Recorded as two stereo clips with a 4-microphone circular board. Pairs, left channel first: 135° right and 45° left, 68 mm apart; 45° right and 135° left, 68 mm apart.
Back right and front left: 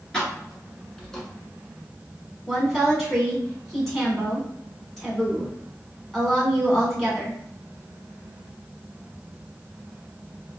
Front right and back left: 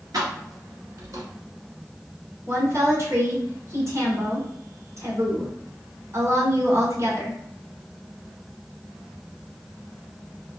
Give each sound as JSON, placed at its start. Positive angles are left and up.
{"t": 0.1, "sound": "keys jangling", "azimuth_deg": 145, "distance_m": 1.7}
{"t": 2.5, "sound": "a woman speaking", "azimuth_deg": 140, "distance_m": 2.0}